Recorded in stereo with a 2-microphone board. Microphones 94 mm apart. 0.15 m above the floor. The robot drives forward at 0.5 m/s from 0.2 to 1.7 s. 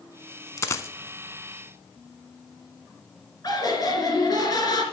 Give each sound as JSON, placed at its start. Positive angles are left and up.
{"t": 0.6, "sound": "a dropped coin", "side_deg": 30, "distance_m": 0.6}
{"t": 3.4, "sound": "laughter", "side_deg": 40, "distance_m": 2.5}